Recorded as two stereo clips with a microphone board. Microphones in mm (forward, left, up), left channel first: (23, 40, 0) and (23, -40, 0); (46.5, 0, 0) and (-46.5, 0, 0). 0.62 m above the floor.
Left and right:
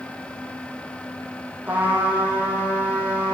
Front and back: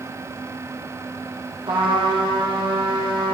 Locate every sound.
1.7 s a trumpet: 160° right, 6.5 m